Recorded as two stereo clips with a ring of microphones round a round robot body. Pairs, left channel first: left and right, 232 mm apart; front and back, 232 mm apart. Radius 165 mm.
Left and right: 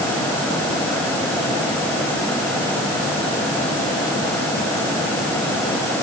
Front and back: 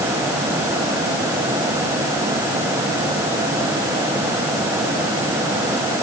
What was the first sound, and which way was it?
Only background noise.